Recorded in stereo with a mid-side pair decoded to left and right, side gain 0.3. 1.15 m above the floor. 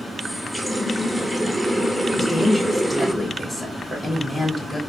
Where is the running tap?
Straight ahead, 0.9 m.